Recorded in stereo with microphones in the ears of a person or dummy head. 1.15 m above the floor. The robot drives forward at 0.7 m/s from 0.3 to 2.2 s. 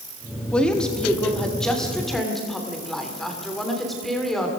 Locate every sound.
0.5 s a woman speaking: 10° left (ahead or behind), 1.8 m; by 4.5 s 5° left (ahead or behind), 3 m